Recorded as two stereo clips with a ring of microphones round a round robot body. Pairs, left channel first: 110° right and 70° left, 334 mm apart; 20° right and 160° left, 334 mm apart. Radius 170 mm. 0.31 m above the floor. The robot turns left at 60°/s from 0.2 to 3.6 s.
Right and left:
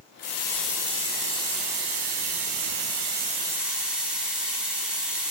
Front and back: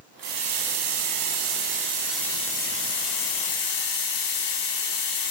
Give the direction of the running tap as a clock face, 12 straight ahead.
6 o'clock.